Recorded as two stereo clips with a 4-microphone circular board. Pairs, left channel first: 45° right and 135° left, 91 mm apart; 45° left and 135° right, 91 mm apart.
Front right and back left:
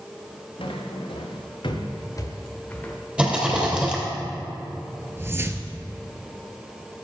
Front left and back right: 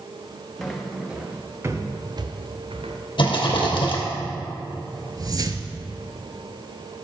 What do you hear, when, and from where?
0.6 s footsteps: 45° right, 2.0 m; by 3.0 s 125° right, 1.7 m
3.2 s a rattle: 60° left, 2.5 m
5.2 s a whoosh: 170° right, 0.7 m